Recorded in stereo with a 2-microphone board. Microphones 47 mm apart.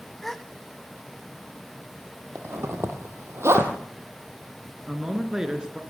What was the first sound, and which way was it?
A gasp, 5° left (ahead or behind).